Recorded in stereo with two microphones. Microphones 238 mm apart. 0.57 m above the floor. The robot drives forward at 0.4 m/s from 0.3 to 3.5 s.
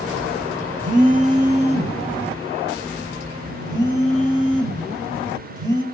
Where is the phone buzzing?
35° right (ahead or behind), 0.9 m; by 5.8 s 15° right (ahead or behind), 1.8 m.